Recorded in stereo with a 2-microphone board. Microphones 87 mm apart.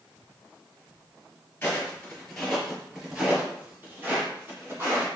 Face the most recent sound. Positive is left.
turn(degrees=-30)  # may be behind; listen again after turning